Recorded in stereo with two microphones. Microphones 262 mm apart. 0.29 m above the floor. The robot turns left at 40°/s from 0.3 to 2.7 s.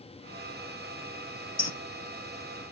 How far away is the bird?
About 0.5 m.